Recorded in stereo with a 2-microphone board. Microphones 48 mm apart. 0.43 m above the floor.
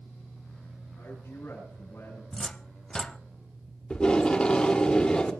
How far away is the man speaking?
About 9.5 m.